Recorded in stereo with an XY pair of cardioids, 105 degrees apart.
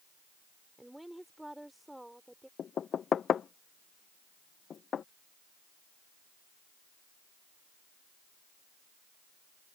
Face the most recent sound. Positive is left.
turn(degrees=50)